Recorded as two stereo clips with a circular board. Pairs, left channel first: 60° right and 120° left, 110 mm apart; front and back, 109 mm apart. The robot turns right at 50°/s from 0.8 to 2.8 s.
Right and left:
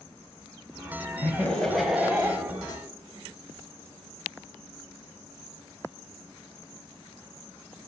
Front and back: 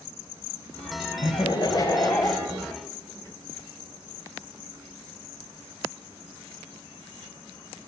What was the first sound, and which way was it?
Laughter, straight ahead.